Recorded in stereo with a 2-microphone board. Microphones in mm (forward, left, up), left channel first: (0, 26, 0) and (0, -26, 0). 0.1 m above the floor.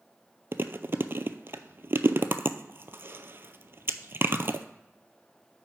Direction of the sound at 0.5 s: 45° right (ahead or behind).